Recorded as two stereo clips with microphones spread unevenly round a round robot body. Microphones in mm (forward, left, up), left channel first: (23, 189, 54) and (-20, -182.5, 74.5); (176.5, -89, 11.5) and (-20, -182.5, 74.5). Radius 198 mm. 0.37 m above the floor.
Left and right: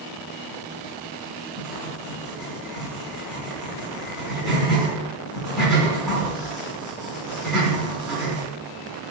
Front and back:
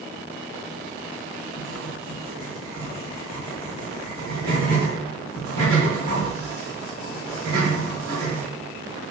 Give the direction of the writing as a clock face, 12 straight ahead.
6 o'clock.